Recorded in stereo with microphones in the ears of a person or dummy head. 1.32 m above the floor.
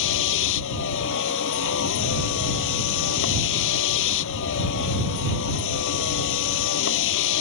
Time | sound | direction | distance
0.0 | a vehicle | 70° left (ahead or behind) | ?